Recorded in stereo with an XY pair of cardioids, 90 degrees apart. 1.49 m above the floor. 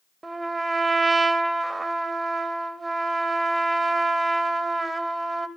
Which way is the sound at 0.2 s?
25° right.